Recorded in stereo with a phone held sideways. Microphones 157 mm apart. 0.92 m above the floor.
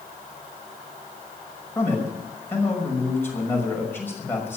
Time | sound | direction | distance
1.8 | a man speaking | 15° left (ahead or behind) | 6 m